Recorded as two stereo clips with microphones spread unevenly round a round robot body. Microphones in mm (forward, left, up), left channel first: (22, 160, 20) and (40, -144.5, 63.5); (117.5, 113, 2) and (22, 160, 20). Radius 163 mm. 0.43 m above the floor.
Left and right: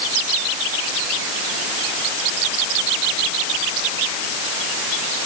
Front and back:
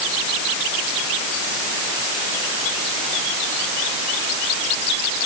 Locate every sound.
Only background noise.